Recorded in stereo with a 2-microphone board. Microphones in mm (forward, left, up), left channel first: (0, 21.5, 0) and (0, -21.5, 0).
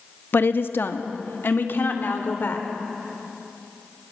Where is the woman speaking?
55° left (ahead or behind), 0.9 m.